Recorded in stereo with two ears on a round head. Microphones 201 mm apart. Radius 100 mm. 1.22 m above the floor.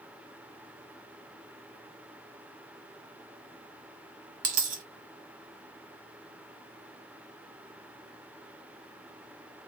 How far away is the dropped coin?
About 1.2 m.